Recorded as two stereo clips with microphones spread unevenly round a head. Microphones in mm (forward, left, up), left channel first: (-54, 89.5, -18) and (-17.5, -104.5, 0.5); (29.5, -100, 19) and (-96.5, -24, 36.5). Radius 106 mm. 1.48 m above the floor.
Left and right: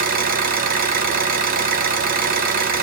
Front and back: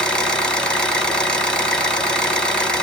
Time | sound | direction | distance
0.0 | an engine running | 120° right | 0.9 m